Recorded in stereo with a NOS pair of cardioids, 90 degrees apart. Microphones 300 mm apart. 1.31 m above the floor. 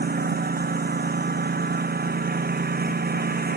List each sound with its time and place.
0.0 s a lawn mower: 30° right